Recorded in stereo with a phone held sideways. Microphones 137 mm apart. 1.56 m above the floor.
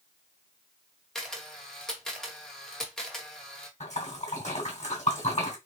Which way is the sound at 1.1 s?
5° left (ahead or behind).